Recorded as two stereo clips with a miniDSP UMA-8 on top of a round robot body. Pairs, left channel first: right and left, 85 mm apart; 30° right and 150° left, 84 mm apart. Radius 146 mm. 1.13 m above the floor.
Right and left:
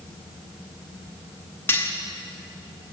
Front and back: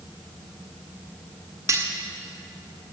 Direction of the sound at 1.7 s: 155° right.